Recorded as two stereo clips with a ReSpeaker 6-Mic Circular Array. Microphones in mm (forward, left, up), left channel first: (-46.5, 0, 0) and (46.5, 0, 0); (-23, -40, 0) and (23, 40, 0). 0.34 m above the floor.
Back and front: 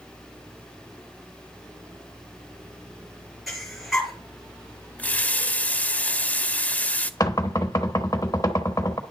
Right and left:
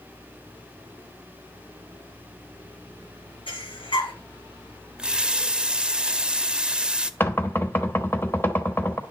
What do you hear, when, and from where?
3.5 s breathing: 90° right, 3.5 m
5.0 s a running tap: 125° left, 0.6 m
7.2 s knocking: 170° right, 1.2 m